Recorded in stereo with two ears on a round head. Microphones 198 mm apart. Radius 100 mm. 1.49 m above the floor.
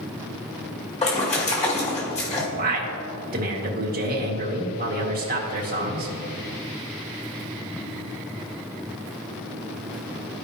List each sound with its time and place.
1.0 s a splash: 30° left (ahead or behind), 2 m
2.5 s a man speaking: 45° right (ahead or behind), 1.9 m